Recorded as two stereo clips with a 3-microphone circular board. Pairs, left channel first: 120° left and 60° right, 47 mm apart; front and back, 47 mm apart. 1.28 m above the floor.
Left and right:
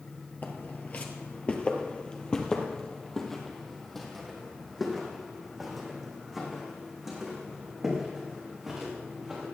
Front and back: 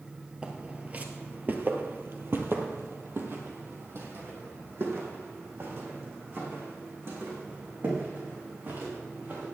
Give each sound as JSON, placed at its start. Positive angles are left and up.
{"t": 0.4, "sound": "footsteps", "azimuth_deg": 125, "distance_m": 1.6}